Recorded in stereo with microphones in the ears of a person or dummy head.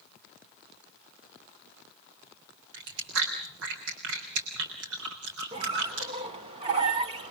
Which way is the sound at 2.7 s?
70° right (ahead or behind).